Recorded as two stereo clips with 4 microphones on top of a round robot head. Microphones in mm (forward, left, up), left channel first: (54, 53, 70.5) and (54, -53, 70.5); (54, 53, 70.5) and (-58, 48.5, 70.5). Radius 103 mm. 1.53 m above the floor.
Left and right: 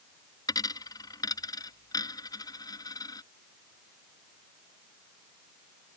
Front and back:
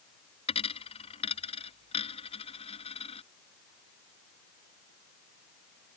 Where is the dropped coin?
35° left.